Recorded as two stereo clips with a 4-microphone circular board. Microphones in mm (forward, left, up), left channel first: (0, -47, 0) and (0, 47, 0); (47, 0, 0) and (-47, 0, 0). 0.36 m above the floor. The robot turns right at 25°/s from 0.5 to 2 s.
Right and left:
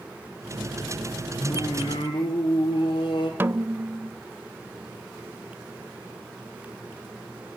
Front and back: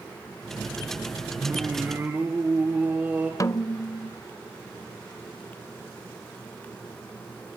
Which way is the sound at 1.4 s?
125° right.